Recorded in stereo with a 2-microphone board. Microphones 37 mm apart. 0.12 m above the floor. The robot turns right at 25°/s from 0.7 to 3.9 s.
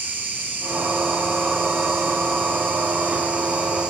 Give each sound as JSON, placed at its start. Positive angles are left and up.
{"t": 0.0, "sound": "an insect", "azimuth_deg": -110, "distance_m": 0.8}